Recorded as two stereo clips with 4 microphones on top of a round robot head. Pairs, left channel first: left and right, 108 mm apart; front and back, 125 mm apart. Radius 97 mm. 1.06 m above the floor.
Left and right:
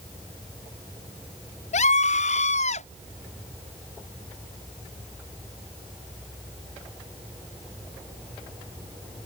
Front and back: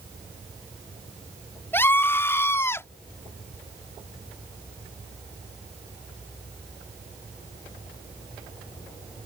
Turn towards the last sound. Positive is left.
turn(degrees=70)